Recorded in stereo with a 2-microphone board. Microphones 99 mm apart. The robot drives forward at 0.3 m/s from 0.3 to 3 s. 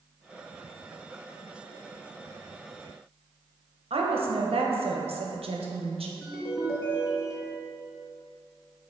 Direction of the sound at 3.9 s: 75° right (ahead or behind).